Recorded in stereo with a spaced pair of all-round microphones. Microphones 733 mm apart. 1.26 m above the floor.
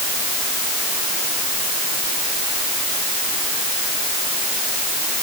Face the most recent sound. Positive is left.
No sound to turn to.